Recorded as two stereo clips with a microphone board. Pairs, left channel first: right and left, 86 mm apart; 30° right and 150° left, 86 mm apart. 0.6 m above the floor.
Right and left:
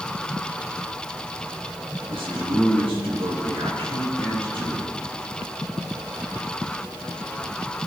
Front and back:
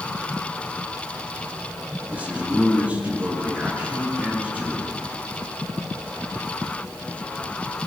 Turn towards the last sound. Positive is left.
turn(degrees=75)